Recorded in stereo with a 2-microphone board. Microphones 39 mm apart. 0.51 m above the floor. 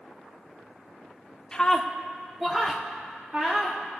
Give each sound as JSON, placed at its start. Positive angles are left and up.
{"t": 1.5, "sound": "a scream", "side_deg": 20, "distance_m": 1.1}